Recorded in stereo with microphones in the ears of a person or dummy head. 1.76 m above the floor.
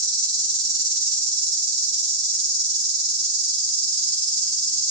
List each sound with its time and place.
0.0 s an insect: 20° right (ahead or behind), 4.5 m